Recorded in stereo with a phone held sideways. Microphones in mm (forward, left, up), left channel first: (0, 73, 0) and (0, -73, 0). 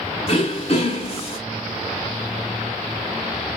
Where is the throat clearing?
45° left (ahead or behind), 1.5 m.